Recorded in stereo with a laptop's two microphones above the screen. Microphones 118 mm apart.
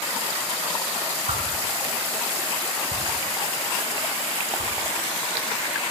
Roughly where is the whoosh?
Right.